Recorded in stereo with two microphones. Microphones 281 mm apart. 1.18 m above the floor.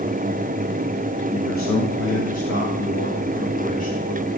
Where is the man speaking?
70° left (ahead or behind), 1.9 m; by 4.3 s 20° left (ahead or behind), 3 m.